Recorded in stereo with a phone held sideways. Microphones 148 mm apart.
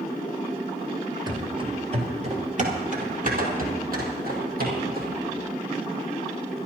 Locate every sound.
1.3 s running footsteps: 25° right (ahead or behind), 1.7 m; by 5.2 s 70° right (ahead or behind), 4 m